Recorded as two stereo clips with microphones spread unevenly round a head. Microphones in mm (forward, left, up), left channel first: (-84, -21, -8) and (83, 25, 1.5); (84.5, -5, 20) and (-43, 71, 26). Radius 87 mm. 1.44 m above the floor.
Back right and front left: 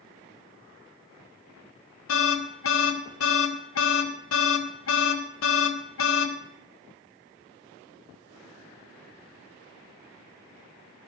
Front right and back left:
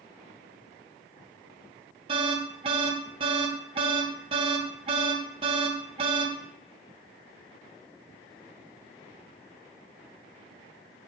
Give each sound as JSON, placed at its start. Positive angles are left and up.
{"t": 2.1, "sound": "an alarm", "azimuth_deg": -145, "distance_m": 1.4}